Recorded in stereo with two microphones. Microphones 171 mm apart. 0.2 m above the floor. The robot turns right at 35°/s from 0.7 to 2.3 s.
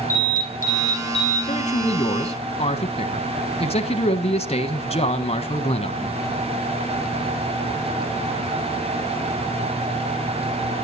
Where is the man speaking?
40° left (ahead or behind), 1.2 m.